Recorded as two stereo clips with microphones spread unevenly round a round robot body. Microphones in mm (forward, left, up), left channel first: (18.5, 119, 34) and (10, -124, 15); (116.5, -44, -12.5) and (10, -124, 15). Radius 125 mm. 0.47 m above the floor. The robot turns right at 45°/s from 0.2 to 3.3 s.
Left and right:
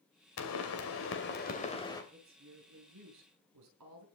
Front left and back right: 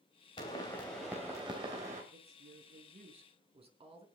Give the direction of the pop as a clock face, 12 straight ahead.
9 o'clock.